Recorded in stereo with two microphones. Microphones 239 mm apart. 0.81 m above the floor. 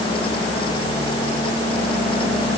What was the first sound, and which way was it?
Only background noise.